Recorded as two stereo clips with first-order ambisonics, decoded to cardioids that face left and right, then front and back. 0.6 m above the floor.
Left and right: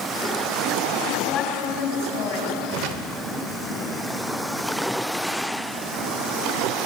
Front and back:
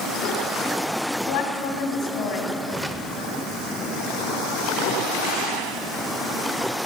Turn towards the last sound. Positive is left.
turn(degrees=-95)